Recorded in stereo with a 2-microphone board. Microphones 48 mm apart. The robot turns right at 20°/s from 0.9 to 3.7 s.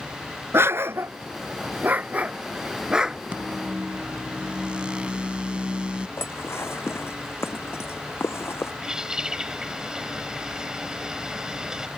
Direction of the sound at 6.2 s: 60° left (ahead or behind).